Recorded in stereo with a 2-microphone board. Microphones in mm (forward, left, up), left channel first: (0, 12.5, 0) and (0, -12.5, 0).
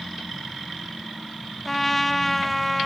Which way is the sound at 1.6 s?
5° left (ahead or behind).